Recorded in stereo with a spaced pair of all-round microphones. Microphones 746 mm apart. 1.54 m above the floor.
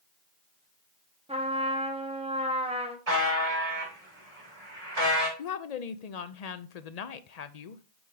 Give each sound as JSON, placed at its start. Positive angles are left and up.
{"t": 1.3, "sound": "a trumpet", "side_deg": -10, "distance_m": 1.2}
{"t": 3.1, "sound": "a buzzer", "side_deg": -50, "distance_m": 3.0}
{"t": 5.4, "sound": "a woman speaking", "side_deg": 60, "distance_m": 0.7}